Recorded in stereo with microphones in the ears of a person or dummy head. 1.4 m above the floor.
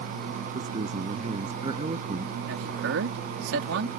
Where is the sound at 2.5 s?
80° right.